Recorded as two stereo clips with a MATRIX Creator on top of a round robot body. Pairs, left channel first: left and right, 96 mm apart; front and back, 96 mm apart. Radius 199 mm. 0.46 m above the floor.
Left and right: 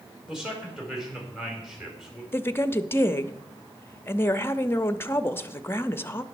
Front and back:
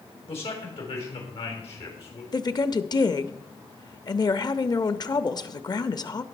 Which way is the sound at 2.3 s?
30° left.